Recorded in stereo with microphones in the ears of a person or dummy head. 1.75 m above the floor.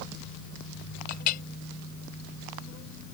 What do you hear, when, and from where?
1.1 s a clink: 40° left (ahead or behind)